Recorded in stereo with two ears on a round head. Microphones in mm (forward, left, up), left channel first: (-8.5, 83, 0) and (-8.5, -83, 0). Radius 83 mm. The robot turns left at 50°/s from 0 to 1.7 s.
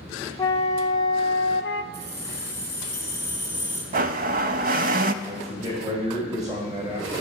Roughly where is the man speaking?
Right.